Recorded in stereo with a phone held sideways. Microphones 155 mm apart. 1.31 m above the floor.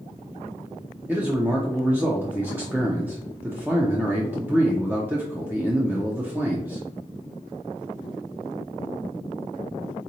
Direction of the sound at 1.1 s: 10° right (ahead or behind).